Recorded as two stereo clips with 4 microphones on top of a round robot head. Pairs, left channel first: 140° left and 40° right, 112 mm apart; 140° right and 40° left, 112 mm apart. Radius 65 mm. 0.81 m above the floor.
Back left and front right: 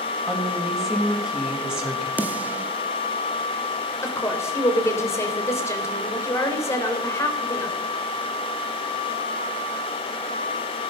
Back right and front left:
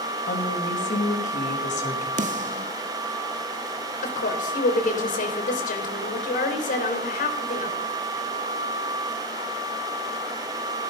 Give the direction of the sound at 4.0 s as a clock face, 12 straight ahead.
5 o'clock.